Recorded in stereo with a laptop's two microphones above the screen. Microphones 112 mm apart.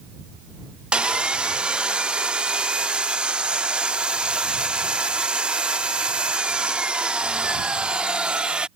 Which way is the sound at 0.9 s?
10° right (ahead or behind).